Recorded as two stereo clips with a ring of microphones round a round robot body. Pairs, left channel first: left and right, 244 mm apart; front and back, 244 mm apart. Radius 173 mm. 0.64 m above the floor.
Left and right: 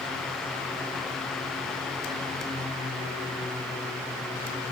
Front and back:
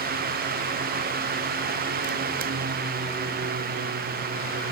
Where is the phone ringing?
No phone ringing in this recording.